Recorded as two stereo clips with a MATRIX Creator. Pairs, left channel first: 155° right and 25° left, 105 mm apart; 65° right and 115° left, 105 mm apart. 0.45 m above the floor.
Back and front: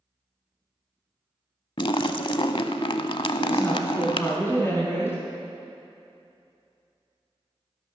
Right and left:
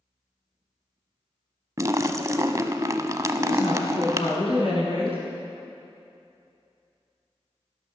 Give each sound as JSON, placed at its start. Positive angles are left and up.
{"t": 1.8, "sound": "a splash", "azimuth_deg": 170, "distance_m": 0.6}
{"t": 3.4, "sound": "a woman speaking", "azimuth_deg": -90, "distance_m": 4.5}